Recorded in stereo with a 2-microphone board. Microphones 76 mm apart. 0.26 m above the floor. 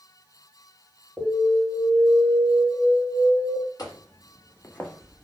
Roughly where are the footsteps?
Left.